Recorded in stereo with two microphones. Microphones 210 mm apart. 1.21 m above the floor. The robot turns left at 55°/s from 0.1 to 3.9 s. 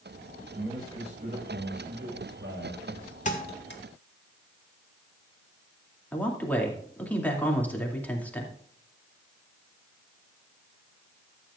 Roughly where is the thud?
Left.